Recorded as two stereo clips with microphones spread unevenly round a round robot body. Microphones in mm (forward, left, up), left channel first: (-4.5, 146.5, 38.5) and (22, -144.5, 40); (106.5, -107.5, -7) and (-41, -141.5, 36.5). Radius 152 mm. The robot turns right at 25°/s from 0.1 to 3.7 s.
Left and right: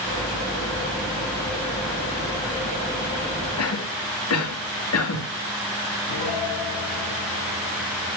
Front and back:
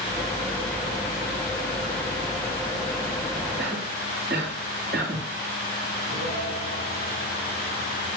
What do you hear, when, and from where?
3.6 s a cough: 130° left, 2.5 m; by 5.2 s 135° left, 2.5 m
6.1 s a piano: 85° left, 6 m